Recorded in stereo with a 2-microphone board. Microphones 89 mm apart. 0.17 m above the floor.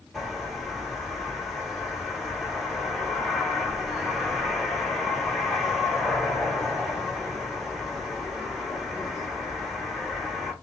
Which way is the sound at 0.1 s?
Centre (ahead or behind).